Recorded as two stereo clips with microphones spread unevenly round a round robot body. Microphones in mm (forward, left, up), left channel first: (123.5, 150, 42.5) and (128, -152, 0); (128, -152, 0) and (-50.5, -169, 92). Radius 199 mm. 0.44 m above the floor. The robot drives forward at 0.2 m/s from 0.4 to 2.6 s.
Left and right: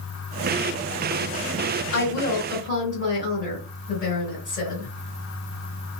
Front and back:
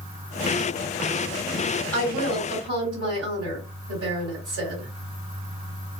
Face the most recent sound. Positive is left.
turn(degrees=155)